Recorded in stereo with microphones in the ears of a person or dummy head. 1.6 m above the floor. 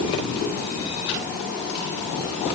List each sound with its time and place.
Only background noise.